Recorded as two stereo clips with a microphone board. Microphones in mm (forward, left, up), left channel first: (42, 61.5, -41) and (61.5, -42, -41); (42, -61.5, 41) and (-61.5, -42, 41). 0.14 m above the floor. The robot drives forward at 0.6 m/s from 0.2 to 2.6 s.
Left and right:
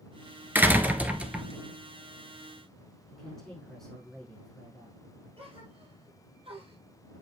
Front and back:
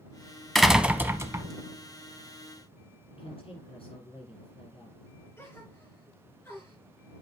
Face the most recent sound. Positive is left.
turn(degrees=-70)